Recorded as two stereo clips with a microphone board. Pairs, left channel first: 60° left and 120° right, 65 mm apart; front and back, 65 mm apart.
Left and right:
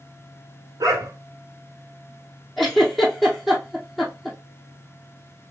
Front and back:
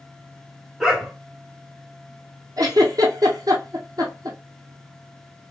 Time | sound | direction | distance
0.8 | a dog barking | 95° right | 1.6 m
2.6 | a giggle | 150° left | 1.9 m